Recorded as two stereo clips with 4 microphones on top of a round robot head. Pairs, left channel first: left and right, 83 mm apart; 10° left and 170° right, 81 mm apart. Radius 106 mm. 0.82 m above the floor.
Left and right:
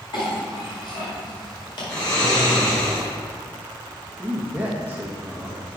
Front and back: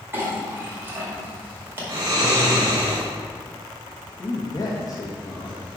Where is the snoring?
145° left, 2.5 m.